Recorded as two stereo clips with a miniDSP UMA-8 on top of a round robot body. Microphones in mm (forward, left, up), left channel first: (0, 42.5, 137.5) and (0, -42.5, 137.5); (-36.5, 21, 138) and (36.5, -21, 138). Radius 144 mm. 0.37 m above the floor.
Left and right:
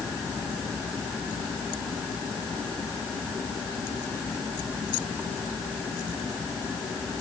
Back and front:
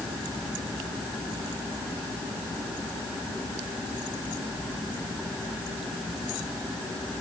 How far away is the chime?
I don't hear a chime.